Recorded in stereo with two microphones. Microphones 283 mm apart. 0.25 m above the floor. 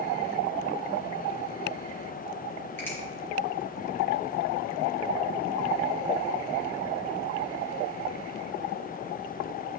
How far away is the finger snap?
About 4 m.